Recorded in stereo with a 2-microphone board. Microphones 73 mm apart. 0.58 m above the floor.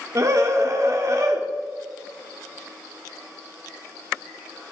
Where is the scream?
45° right (ahead or behind), 1.7 m.